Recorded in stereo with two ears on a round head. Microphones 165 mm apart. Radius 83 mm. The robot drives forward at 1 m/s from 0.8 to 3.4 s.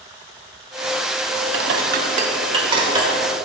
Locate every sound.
1.5 s dishes clattering: 65° right (ahead or behind), 0.8 m; by 3.1 s 25° right (ahead or behind), 1.8 m